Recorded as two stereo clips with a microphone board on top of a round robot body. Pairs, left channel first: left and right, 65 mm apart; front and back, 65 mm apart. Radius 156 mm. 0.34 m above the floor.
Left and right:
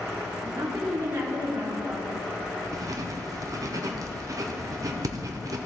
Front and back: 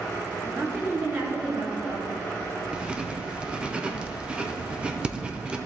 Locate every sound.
0.4 s a woman speaking: 135° right, 2.5 m
2.7 s writing: 110° right, 1.0 m